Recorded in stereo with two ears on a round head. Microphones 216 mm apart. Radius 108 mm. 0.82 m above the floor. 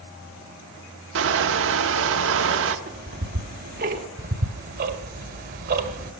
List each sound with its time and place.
1.1 s crushing: 55° right (ahead or behind), 1.0 m
2.9 s ticking: 40° right (ahead or behind), 1.1 m
4.2 s ticking: 40° right (ahead or behind), 1.5 m